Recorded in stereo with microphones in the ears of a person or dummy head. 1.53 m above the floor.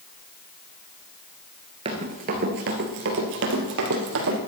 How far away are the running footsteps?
About 1.9 m.